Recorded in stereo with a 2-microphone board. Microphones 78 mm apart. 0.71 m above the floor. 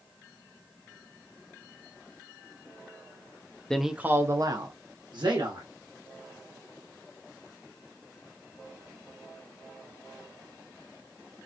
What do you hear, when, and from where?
3.7 s a man speaking: 5° left (ahead or behind), 0.6 m; by 5.7 s 70° right (ahead or behind), 1.8 m